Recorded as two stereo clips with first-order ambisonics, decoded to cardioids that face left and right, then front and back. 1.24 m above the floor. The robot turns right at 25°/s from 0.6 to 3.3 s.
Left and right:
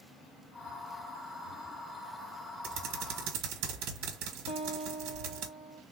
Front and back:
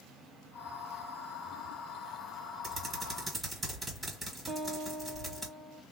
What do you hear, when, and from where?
2.6 s typing on a keyboard: 120° right, 1.2 m; by 5.5 s 105° right, 1.2 m
4.5 s a guitar: 120° left, 0.7 m